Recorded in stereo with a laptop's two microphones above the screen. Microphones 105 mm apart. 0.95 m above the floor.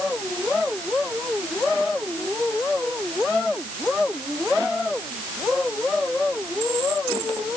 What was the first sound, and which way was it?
Only background noise.